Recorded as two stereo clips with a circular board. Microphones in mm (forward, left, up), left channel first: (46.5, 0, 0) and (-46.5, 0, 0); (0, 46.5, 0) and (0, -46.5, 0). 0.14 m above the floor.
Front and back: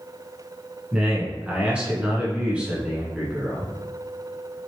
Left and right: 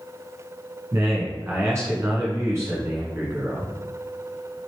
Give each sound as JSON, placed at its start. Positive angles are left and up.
{"t": 0.9, "sound": "a man speaking", "azimuth_deg": -115, "distance_m": 1.4}